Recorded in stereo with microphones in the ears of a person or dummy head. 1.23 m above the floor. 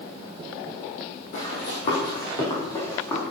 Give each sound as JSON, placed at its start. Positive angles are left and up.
{"t": 1.3, "sound": "running footsteps", "side_deg": 50, "distance_m": 3.0}